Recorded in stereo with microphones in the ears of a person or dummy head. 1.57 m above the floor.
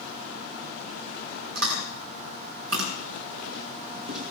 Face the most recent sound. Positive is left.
turn(degrees=-75)  # may be behind; listen again after turning